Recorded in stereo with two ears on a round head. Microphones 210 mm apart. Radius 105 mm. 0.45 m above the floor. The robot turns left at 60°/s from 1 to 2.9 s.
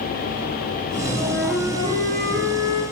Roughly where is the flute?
Ahead.